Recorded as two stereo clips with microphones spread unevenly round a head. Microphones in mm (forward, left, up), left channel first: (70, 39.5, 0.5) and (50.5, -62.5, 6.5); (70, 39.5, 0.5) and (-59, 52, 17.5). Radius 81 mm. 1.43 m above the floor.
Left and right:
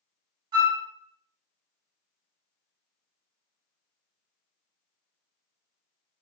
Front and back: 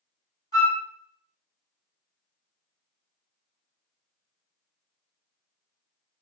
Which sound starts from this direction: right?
A flute, at 0.5 s.